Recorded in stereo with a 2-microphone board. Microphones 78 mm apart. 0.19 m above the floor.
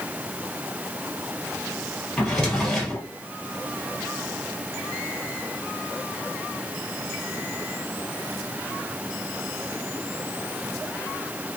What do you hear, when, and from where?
2.2 s a drawer: 10° left (ahead or behind), 1.5 m